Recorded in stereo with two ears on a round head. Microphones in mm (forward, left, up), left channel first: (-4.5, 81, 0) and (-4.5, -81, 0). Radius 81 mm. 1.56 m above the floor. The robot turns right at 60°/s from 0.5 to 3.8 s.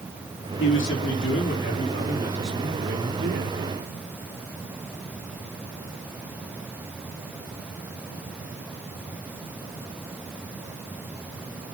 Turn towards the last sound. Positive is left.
turn(degrees=-100)